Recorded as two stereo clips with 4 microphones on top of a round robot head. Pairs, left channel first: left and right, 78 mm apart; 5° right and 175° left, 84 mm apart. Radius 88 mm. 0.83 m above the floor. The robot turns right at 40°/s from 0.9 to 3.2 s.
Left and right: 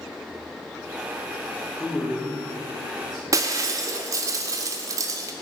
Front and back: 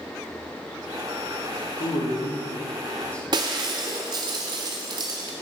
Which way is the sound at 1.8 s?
5° left.